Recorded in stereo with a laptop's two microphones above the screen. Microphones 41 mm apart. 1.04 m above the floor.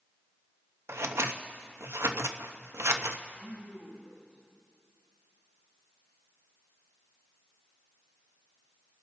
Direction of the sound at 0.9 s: 85° right.